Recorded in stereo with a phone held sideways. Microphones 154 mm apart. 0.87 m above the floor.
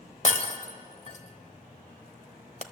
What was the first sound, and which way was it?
Breaking glass, 50° left (ahead or behind).